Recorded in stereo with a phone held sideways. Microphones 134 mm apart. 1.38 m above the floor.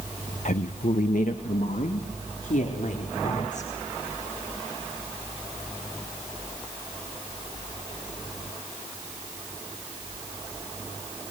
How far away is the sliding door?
I don't hear a sliding door.